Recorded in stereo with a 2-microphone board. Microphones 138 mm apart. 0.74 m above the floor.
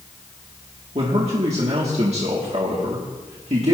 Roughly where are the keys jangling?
No keys jangling in this recording.